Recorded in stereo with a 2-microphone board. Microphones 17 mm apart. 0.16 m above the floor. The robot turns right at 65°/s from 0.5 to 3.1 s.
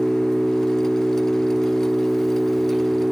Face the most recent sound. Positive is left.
turn(degrees=-140)